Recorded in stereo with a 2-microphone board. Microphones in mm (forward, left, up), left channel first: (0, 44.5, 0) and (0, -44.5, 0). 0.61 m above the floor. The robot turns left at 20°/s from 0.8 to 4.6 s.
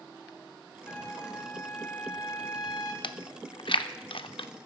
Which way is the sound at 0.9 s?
160° left.